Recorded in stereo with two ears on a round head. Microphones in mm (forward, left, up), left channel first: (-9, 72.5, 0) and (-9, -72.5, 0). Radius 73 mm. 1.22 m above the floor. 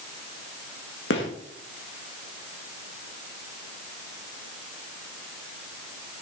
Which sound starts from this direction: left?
A gunshot, at 1.1 s.